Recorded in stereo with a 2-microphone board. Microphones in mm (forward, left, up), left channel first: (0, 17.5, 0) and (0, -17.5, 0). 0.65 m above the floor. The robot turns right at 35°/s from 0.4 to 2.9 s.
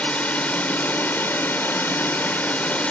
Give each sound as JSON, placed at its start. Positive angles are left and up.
{"t": 0.0, "sound": "a drone", "azimuth_deg": 50}